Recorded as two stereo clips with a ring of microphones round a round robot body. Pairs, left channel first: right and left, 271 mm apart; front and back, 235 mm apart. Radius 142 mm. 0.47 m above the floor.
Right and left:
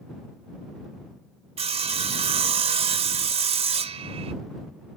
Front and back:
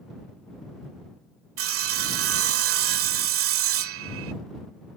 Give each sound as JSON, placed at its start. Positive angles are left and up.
{"t": 1.6, "sound": "sawing", "azimuth_deg": 160}